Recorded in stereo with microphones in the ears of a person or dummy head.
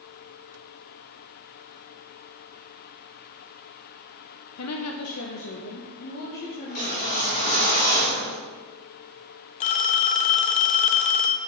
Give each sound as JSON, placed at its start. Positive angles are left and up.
{"t": 4.6, "sound": "a woman speaking", "side_deg": 80, "distance_m": 1.1}
{"t": 6.7, "sound": "a whoosh", "side_deg": 45, "distance_m": 4.0}
{"t": 9.6, "sound": "a phone ringing", "side_deg": 40, "distance_m": 0.5}